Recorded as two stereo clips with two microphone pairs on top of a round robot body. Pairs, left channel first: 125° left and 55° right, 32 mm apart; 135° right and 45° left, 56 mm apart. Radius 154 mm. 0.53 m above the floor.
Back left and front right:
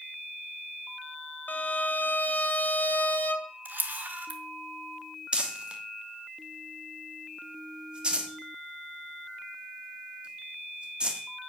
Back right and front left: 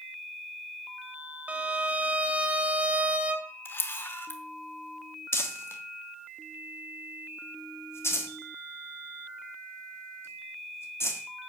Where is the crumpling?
105° right, 1.5 m.